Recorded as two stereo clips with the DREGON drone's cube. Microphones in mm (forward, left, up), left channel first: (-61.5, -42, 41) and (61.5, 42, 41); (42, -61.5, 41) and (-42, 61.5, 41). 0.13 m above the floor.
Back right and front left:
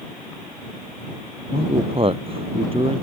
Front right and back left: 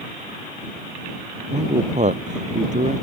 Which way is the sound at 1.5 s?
85° left.